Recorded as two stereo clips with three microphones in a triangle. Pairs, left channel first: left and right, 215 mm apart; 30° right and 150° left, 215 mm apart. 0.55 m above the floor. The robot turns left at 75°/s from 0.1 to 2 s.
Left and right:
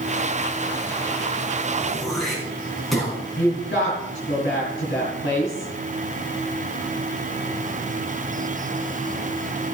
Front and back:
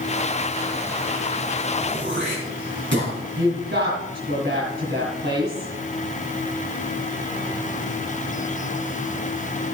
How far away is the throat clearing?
About 5 m.